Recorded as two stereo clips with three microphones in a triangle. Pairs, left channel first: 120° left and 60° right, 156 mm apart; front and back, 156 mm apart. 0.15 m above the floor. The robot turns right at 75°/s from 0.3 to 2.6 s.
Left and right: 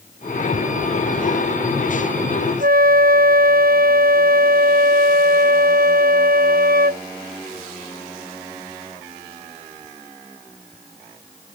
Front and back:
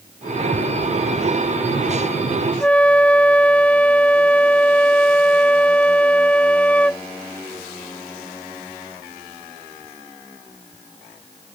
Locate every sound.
2.6 s a flute: 80° right